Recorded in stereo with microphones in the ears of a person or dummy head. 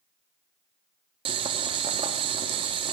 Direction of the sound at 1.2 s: 30° right (ahead or behind).